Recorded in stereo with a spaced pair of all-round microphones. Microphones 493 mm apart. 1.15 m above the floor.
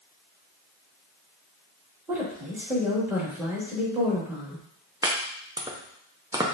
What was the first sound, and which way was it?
A woman speaking, 5° right (ahead or behind).